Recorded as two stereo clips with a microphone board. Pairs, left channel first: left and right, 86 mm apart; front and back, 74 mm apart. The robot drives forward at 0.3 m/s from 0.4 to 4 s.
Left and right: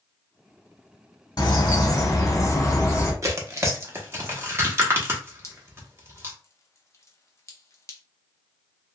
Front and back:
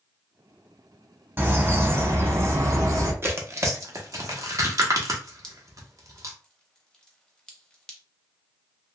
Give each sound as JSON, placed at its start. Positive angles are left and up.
{"t": 1.4, "sound": "a bird", "azimuth_deg": 120, "distance_m": 0.8}
{"t": 3.2, "sound": "tearing paper", "azimuth_deg": -135, "distance_m": 0.7}
{"t": 5.4, "sound": "dripping", "azimuth_deg": 75, "distance_m": 0.6}